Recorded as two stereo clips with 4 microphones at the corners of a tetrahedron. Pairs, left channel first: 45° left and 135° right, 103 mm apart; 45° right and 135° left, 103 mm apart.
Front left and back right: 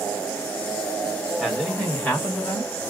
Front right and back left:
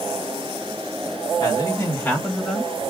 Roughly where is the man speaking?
Ahead right.